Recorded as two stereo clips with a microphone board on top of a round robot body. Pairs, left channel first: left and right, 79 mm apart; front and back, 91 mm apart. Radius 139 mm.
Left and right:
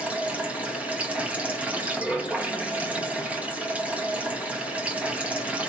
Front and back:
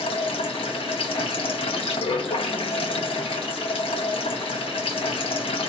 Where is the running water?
20° right, 1.1 m.